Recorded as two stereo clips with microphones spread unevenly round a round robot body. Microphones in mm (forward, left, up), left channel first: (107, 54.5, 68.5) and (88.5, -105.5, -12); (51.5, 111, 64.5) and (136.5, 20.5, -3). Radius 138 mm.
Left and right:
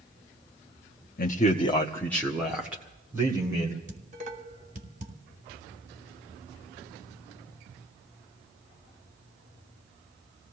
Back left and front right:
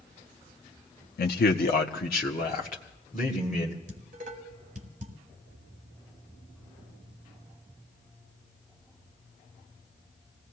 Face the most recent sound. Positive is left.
turn(degrees=-55)